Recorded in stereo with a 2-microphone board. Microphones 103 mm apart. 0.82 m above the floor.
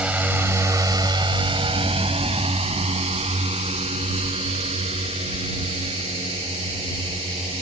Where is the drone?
10° right (ahead or behind); by 7.6 s 70° right (ahead or behind).